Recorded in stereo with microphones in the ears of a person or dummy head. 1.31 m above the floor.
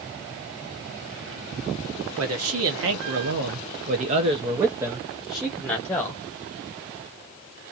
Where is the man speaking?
70° right (ahead or behind), 1.3 m; by 6.2 s 10° left (ahead or behind), 1.4 m.